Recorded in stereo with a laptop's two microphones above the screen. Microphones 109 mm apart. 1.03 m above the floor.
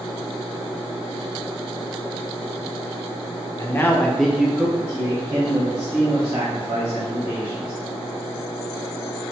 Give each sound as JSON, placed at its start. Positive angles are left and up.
{"t": 3.6, "sound": "a man speaking", "side_deg": 30, "distance_m": 0.6}